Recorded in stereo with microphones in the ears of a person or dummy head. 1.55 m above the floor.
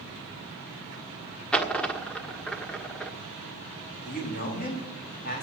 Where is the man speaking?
45° left (ahead or behind), 4 m.